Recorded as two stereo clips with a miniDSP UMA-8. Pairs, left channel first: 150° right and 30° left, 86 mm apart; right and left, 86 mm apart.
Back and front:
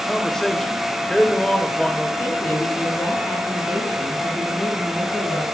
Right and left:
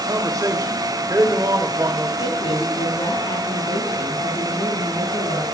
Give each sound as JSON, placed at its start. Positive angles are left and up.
{"t": 0.1, "sound": "a man speaking", "azimuth_deg": 125, "distance_m": 2.0}
{"t": 2.2, "sound": "a woman speaking", "azimuth_deg": -80, "distance_m": 5.5}